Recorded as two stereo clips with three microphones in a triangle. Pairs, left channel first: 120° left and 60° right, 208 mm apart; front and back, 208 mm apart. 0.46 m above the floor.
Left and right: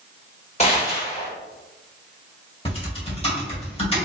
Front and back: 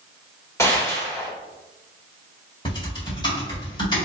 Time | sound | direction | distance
0.6 | a gunshot | 70° left | 1.5 m
2.6 | typing on a keyboard | 65° left | 1.9 m